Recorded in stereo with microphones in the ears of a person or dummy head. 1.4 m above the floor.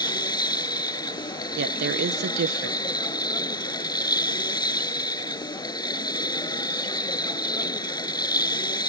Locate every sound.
0.0 s a machine running: 15° left (ahead or behind)
1.6 s a woman speaking: 50° right (ahead or behind)